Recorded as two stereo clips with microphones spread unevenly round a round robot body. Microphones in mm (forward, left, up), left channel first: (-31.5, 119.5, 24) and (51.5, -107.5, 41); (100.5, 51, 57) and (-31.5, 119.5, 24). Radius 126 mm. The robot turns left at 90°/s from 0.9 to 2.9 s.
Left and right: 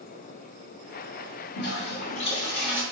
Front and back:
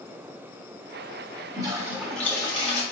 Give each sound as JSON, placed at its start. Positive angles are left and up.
{"t": 1.6, "sound": "a toilet flushing", "azimuth_deg": 125, "distance_m": 1.4}